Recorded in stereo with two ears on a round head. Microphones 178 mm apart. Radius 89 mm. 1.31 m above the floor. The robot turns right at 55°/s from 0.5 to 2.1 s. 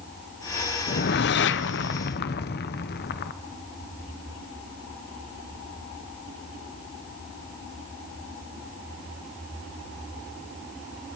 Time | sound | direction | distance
0.9 | a whoosh | 50° left | 0.7 m